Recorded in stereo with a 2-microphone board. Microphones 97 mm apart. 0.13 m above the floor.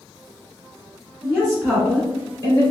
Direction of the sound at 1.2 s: 5° right (ahead or behind).